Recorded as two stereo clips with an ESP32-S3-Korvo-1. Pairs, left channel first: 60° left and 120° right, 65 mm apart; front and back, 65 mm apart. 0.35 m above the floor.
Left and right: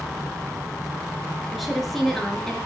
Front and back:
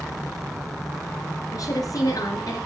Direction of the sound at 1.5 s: 30° right.